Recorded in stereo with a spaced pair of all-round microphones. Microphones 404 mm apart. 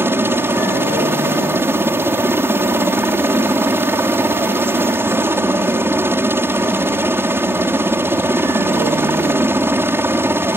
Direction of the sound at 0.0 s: 5° right (ahead or behind).